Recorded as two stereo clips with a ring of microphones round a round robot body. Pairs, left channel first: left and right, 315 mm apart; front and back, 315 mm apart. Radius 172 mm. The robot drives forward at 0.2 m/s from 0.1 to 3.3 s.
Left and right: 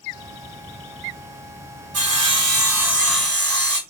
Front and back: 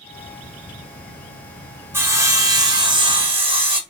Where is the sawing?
100° right, 1.9 m; by 3.8 s 110° right, 2.0 m.